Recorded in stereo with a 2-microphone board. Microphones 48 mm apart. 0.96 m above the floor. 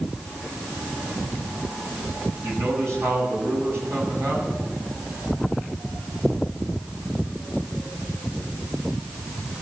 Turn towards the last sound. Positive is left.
turn(degrees=-80)